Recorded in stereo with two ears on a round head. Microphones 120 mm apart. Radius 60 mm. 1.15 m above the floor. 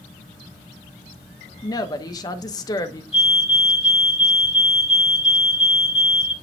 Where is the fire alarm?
50° left (ahead or behind), 3 m.